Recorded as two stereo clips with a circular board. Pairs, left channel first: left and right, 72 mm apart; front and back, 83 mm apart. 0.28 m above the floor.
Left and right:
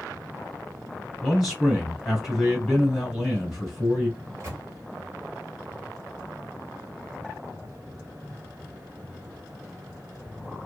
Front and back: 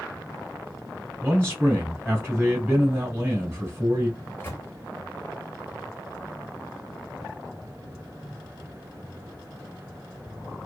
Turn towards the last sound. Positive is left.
turn(degrees=-55)